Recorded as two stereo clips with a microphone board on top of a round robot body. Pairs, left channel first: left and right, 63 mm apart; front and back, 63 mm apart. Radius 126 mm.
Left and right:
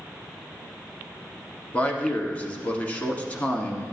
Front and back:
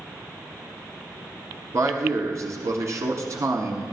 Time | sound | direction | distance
1.7 | a man speaking | 150° left | 1.3 m